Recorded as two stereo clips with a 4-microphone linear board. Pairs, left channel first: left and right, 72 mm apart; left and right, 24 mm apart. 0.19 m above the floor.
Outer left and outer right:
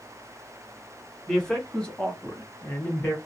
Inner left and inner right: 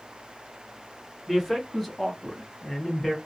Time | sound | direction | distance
1.3 | a man speaking | 5° left (ahead or behind) | 1.5 m